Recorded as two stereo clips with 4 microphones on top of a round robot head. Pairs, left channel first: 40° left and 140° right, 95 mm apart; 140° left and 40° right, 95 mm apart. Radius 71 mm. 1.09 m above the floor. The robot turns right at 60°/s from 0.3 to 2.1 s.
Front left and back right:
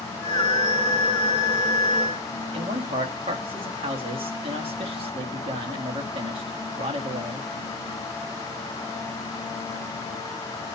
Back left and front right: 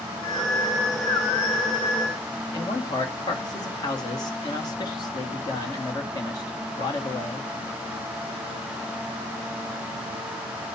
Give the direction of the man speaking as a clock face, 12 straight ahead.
6 o'clock.